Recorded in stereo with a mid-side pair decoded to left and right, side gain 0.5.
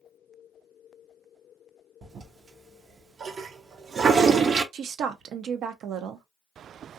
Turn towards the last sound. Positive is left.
turn(degrees=-65)